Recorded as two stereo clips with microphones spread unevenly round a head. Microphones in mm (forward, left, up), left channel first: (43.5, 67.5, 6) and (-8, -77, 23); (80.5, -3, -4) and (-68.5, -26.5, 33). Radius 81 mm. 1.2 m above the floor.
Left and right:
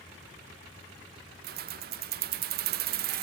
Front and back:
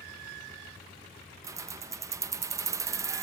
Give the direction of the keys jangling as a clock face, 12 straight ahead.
4 o'clock.